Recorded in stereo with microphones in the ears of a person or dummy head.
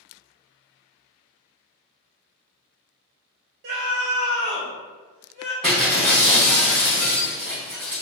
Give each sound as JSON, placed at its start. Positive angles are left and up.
{"t": 3.6, "sound": "a scream", "side_deg": -45, "distance_m": 0.6}
{"t": 5.6, "sound": "breaking glass", "side_deg": 0, "distance_m": 0.8}